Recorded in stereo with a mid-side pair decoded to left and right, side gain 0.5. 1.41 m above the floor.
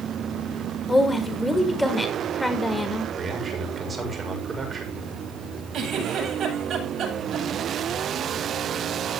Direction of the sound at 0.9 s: 10° left.